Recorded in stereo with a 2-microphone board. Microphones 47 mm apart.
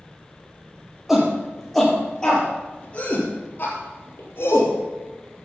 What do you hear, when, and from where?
1.1 s a shout: 5° right (ahead or behind), 5 m; by 4.7 s 55° left (ahead or behind), 5 m